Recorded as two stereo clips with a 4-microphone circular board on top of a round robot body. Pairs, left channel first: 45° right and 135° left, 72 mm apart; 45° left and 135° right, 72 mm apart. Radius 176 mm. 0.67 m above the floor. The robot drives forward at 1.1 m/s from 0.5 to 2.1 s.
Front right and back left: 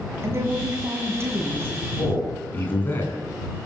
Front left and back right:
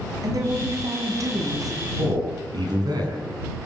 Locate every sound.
0.2 s a woman speaking: 170° right, 7 m
2.0 s a man speaking: 110° right, 8 m